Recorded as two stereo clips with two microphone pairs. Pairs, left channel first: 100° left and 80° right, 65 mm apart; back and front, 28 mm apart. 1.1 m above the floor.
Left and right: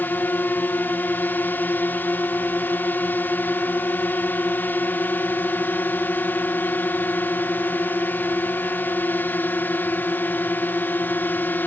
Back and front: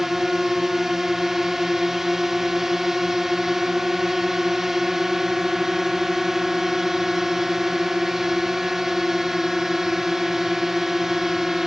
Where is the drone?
70° left.